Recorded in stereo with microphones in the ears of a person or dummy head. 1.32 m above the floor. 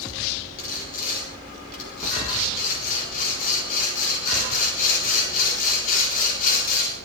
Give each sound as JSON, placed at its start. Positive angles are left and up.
{"t": 0.6, "sound": "sawing", "side_deg": 50, "distance_m": 4.0}